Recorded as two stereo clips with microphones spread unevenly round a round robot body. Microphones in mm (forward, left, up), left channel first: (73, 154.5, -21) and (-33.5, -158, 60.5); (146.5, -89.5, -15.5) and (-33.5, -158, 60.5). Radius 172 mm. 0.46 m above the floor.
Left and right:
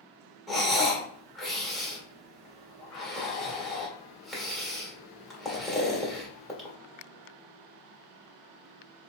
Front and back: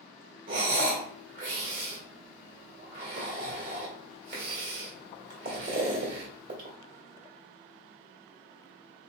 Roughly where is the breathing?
Behind left.